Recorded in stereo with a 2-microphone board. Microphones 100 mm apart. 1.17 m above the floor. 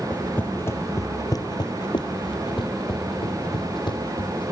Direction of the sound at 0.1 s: 15° left (ahead or behind).